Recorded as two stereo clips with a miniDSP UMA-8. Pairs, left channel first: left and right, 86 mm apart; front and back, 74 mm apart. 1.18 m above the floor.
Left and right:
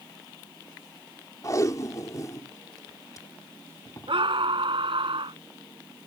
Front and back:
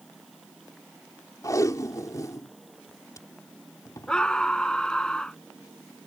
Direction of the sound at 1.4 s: 40° left.